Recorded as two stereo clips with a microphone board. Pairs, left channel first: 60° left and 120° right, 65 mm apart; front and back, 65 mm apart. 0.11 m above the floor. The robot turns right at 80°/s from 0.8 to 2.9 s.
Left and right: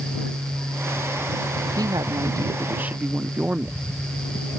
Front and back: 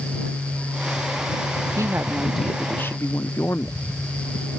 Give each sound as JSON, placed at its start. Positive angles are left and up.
{"t": 1.8, "sound": "a woman speaking", "azimuth_deg": -140}